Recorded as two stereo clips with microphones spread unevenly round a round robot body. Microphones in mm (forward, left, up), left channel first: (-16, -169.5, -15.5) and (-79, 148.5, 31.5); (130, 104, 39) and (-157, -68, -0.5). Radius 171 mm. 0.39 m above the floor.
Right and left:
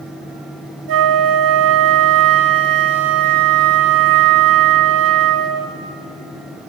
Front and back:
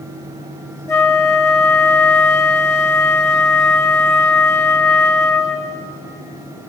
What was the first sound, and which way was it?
A flute, 115° left.